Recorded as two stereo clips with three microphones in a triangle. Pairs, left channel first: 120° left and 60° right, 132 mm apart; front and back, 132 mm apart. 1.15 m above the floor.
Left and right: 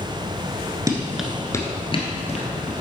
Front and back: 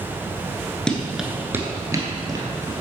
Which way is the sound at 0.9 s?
75° right.